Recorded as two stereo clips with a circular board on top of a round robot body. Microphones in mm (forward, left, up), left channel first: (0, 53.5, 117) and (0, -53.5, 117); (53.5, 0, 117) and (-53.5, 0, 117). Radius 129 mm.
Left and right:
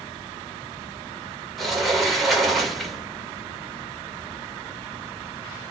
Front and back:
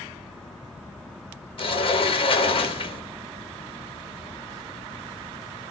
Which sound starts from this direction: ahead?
A sliding door, at 1.6 s.